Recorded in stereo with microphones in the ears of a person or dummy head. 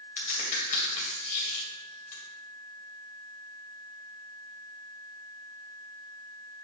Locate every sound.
0.2 s a crack: 45° left (ahead or behind), 2.5 m